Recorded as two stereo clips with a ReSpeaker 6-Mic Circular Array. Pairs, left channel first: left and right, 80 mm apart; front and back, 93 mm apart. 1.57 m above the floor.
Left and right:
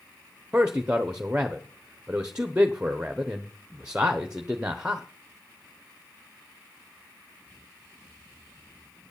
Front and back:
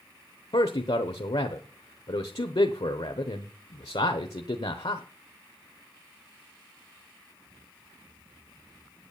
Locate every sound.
0.5 s a man speaking: 15° right, 1.0 m